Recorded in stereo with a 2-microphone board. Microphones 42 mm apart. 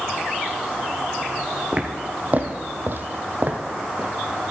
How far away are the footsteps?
About 1.4 m.